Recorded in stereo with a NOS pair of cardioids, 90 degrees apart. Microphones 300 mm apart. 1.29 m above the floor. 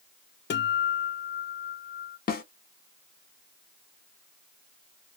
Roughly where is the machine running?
No machine running in this recording.